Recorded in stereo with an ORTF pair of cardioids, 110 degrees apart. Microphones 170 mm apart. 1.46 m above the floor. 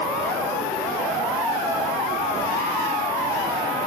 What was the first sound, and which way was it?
An insect, 50° right.